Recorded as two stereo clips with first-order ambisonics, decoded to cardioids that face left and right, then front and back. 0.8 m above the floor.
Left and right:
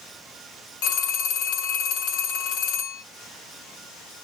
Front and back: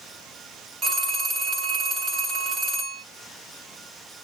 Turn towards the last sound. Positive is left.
turn(degrees=105)